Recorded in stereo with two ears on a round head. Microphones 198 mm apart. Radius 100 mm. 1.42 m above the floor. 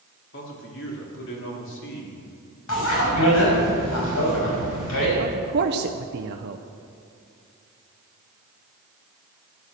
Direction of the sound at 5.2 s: 50° right (ahead or behind).